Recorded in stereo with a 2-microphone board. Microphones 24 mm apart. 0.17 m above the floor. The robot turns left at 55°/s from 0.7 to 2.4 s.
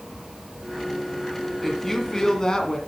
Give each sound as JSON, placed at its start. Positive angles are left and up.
{"t": 1.6, "sound": "a woman speaking", "azimuth_deg": 175, "distance_m": 1.8}